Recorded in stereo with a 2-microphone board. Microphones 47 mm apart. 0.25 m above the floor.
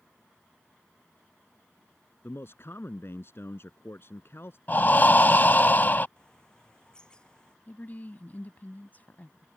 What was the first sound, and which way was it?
A man speaking, 55° left (ahead or behind).